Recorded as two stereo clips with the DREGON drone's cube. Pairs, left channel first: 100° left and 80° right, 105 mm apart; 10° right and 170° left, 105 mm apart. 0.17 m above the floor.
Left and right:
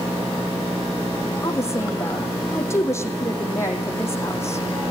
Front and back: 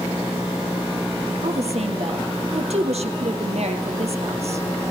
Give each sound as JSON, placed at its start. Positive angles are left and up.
{"t": 1.4, "sound": "a woman speaking", "azimuth_deg": 165, "distance_m": 4.5}